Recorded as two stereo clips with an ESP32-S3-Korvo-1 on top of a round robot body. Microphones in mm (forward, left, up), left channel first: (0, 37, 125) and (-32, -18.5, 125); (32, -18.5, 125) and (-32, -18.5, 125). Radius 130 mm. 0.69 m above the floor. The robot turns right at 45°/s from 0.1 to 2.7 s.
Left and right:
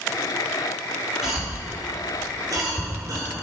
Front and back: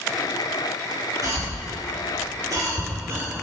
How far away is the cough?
About 2 m.